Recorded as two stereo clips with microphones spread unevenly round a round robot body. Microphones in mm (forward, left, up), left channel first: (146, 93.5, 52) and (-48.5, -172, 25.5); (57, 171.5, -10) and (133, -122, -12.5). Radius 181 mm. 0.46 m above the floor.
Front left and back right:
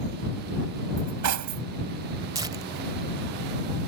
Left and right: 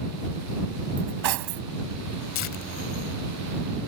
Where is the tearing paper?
155° left.